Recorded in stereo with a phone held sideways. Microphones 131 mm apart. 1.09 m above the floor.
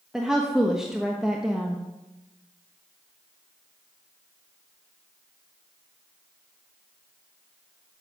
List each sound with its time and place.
0.1 s a woman speaking: 5° right (ahead or behind), 0.9 m